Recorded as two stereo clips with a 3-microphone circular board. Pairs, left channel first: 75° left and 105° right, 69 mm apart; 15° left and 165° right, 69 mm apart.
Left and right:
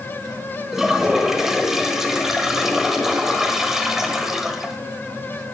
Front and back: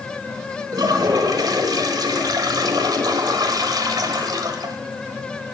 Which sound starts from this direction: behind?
A toilet flushing, at 0.7 s.